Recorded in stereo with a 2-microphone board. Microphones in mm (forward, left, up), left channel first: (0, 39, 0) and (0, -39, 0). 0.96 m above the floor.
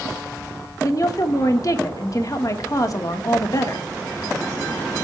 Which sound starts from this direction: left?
A woman speaking, at 0.8 s.